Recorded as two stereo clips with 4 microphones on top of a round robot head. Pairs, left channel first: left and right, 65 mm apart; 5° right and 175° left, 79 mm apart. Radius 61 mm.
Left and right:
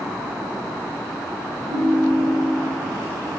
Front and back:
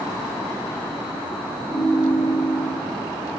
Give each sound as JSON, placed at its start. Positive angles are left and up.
{"t": 1.7, "sound": "a ringtone", "azimuth_deg": 25, "distance_m": 1.8}